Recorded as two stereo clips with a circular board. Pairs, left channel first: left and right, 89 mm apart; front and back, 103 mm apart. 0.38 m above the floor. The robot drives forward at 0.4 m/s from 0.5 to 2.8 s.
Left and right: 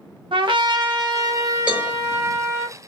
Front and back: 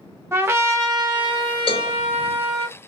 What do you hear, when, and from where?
0.3 s a trumpet: 115° right, 0.6 m; by 2.7 s 155° right, 1.3 m
1.7 s a cowbell: 15° right, 0.9 m; by 2.0 s 20° right, 0.8 m